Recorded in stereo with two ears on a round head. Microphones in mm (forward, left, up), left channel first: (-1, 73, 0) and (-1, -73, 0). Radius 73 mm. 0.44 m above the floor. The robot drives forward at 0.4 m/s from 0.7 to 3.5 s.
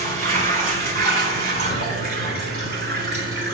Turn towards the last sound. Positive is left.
turn(degrees=-70)  # may be behind; listen again after turning